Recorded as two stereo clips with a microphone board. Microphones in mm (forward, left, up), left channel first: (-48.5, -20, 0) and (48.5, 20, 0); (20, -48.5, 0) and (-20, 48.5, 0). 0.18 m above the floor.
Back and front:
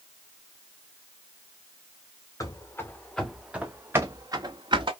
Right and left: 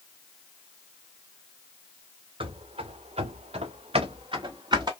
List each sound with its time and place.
2.4 s running footsteps: 145° left, 1.0 m; by 4.9 s 65° left, 1.2 m